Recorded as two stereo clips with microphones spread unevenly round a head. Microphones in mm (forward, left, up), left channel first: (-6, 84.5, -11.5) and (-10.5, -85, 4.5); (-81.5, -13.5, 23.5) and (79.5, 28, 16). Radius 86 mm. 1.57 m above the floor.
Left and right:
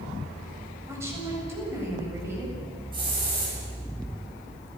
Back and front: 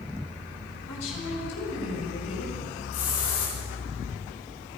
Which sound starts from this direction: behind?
A woman speaking, at 0.9 s.